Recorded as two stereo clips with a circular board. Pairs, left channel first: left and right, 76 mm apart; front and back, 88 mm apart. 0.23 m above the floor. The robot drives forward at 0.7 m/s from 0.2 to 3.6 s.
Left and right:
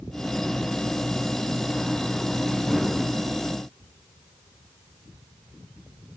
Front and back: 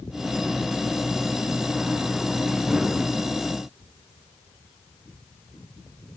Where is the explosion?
I don't hear an explosion.